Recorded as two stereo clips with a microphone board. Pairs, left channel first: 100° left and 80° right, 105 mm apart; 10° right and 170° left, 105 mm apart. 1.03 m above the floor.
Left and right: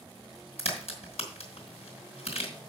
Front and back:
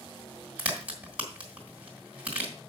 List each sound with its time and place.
0.6 s a crack: 90° left, 3 m